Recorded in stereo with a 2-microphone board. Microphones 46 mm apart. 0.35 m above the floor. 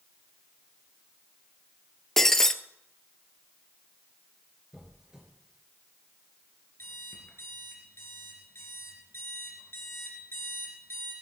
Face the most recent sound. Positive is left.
turn(degrees=60)  # may be behind; listen again after turning